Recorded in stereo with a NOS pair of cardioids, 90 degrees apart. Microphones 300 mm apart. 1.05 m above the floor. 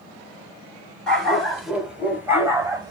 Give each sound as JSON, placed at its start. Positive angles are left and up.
{"t": 1.1, "sound": "a dog barking", "azimuth_deg": 0, "distance_m": 3.0}